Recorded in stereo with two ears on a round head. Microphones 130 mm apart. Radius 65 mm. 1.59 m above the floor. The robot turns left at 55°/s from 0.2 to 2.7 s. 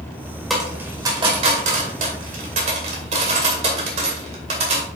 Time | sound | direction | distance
0.5 | a dropped coin | centre (ahead or behind) | 2 m